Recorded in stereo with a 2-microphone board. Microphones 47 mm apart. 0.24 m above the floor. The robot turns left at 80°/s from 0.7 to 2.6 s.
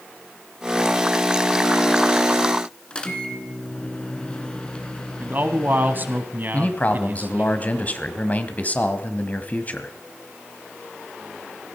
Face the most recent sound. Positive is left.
turn(degrees=35)  # may be behind; listen again after turning